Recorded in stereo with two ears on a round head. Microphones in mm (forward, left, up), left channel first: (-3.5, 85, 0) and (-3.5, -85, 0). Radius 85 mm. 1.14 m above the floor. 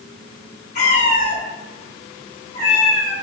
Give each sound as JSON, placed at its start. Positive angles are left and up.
{"t": 0.8, "sound": "a cat meowing", "side_deg": 35, "distance_m": 0.8}